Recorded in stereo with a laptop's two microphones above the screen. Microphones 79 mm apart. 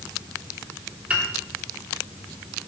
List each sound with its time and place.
1.1 s a piano: 15° right (ahead or behind), 1.4 m